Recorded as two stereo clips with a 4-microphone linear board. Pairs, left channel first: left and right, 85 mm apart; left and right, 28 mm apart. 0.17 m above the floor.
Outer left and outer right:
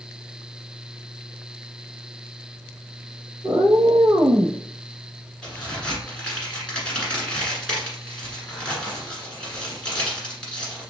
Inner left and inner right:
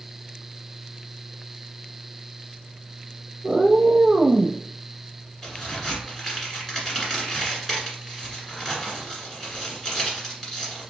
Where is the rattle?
No rattle in this recording.